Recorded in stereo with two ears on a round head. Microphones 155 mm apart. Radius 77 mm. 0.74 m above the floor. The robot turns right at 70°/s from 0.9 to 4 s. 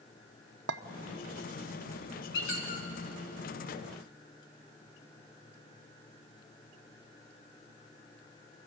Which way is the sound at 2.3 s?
80° left.